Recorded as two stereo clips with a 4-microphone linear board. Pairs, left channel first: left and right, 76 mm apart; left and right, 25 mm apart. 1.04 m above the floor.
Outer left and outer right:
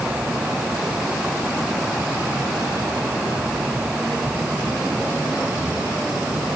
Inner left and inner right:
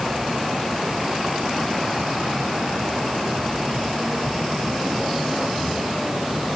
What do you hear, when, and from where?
Only background noise.